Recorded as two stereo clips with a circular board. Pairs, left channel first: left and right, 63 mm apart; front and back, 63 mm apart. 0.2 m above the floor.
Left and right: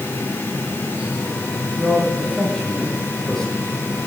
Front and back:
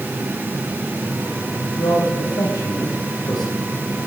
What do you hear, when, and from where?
1.8 s a man speaking: 5° left, 7 m